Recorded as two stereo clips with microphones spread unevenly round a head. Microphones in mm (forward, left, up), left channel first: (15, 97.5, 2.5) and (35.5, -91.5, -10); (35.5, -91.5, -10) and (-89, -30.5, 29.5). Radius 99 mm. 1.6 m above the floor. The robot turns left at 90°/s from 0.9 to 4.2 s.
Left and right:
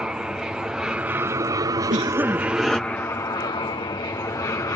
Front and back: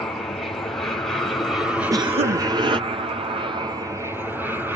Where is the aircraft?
10° right; by 4.8 s 55° left.